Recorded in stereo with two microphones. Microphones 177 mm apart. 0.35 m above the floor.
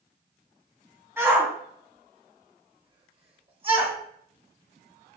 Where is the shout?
15° right (ahead or behind), 3.5 m; by 4.0 s 30° right (ahead or behind), 1.5 m.